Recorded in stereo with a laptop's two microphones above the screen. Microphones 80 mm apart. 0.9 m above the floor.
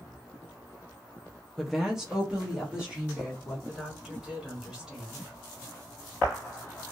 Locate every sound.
1.6 s a woman speaking: centre (ahead or behind), 0.5 m; by 3.6 s 15° right (ahead or behind), 1.9 m
3.7 s a woman speaking: 10° right (ahead or behind), 2 m